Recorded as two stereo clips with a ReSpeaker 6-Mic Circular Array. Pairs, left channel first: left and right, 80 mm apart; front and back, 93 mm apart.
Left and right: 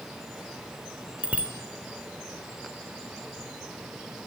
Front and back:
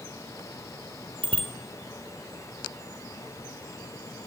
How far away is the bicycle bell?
About 3 m.